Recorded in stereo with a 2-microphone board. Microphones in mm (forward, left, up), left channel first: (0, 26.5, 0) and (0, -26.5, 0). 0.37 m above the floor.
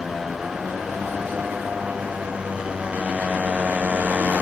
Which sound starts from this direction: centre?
A motorcycle, at 0.0 s.